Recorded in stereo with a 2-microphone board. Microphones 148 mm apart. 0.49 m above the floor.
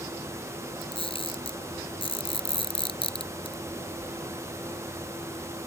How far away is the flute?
I don't hear a flute.